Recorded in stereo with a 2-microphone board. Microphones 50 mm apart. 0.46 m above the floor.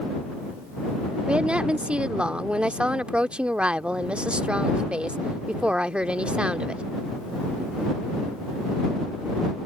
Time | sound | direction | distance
1.3 | a woman speaking | 20° right (ahead or behind) | ?